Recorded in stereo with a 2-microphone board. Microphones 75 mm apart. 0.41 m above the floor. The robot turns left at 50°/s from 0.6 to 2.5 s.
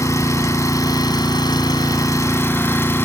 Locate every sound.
0.0 s an engine running: 125° left, 1.5 m; by 3.0 s 30° left, 1.5 m